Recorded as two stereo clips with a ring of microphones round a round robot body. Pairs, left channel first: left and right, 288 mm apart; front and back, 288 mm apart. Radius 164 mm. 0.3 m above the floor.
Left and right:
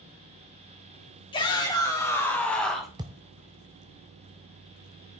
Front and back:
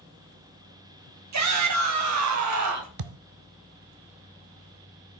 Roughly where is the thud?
Behind.